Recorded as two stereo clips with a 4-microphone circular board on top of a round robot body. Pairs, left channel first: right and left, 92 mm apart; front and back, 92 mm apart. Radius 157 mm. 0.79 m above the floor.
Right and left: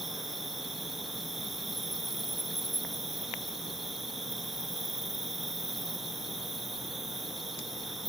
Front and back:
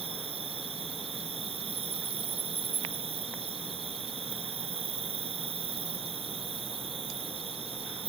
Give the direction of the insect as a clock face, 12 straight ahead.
6 o'clock.